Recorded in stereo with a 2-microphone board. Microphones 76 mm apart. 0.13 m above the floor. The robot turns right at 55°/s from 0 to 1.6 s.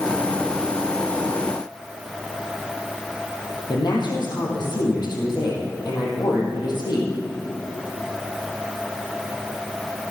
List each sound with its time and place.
3.7 s a woman speaking: 65° left (ahead or behind), 4 m